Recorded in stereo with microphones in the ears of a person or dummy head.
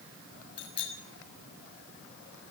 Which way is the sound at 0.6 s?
30° left (ahead or behind).